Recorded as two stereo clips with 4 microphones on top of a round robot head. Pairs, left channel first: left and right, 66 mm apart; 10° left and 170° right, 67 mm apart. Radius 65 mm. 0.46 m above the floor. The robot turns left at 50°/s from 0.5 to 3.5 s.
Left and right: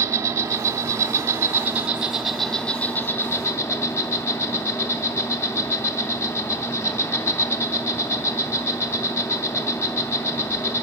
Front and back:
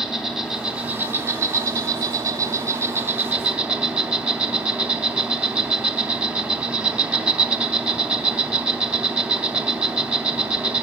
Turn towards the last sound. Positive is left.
turn(degrees=120)